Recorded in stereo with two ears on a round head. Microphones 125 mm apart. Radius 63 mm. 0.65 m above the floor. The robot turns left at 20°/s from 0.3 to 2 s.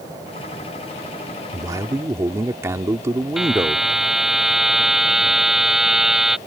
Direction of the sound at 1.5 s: 30° right (ahead or behind).